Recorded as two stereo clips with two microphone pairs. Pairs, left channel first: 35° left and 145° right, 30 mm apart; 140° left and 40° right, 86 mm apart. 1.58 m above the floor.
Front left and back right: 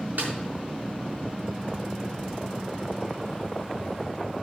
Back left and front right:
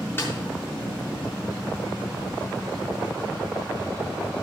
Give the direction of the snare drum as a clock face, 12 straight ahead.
5 o'clock.